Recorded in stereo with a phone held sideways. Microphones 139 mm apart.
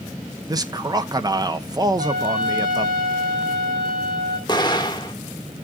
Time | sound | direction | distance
0.5 | a man speaking | 25° right (ahead or behind) | 0.8 m
2.0 | a trumpet | 60° right (ahead or behind) | 6 m
4.5 | an explosion | 30° left (ahead or behind) | 1.3 m